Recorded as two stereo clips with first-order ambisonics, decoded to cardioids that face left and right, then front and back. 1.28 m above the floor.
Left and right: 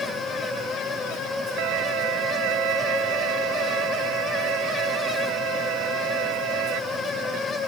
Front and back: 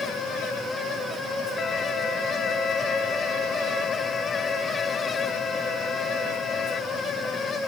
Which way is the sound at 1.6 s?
65° right.